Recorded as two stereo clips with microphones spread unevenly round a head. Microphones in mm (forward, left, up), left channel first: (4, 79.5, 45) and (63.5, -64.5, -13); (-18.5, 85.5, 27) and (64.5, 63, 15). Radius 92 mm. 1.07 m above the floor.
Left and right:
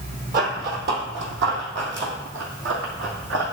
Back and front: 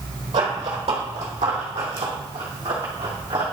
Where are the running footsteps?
30° right, 2 m; by 3.4 s 60° right, 3.5 m.